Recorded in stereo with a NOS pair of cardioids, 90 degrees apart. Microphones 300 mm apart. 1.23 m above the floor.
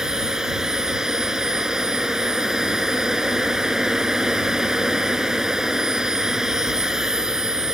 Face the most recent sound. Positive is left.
turn(degrees=0)